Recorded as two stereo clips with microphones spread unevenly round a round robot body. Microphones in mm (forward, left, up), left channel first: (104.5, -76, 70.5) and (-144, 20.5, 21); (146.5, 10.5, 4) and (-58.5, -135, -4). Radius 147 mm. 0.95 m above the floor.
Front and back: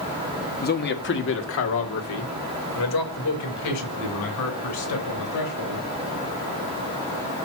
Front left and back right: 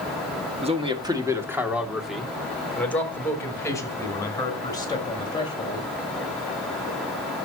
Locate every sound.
0.6 s a man speaking: 80° right, 1.8 m; by 5.9 s 35° right, 5 m